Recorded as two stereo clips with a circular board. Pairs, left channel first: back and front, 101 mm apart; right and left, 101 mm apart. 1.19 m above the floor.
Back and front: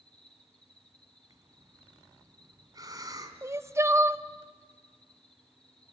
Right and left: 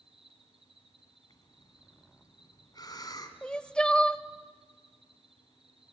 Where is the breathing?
50° right, 2.5 m.